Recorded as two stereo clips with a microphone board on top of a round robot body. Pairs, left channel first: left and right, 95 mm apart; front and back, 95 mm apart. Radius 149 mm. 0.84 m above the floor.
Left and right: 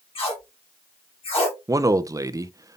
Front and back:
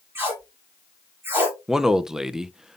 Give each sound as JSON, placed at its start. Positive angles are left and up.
{"t": 0.1, "sound": "tape being pulled", "azimuth_deg": 115, "distance_m": 4.0}
{"t": 1.7, "sound": "a man speaking", "azimuth_deg": -100, "distance_m": 0.7}